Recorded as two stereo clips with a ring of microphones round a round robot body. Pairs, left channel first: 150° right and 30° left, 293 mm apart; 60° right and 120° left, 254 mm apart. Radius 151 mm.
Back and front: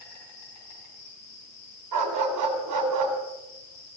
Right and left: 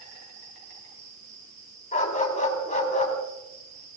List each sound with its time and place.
0.0 s an insect: 175° left, 5.5 m
1.9 s a dog barking: straight ahead, 3 m